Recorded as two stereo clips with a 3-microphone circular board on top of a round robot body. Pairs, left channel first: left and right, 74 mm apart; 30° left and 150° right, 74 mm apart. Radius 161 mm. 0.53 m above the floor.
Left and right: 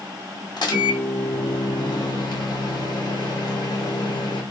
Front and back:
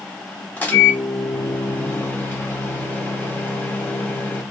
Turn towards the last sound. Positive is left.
turn(degrees=95)